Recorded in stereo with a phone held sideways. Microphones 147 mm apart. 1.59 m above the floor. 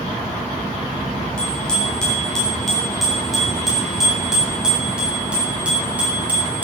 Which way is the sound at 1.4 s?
5° left (ahead or behind).